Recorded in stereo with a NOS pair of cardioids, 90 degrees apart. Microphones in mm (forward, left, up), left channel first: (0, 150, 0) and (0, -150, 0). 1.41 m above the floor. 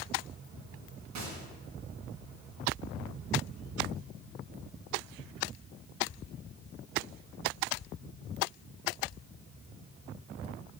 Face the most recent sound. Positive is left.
turn(degrees=-65)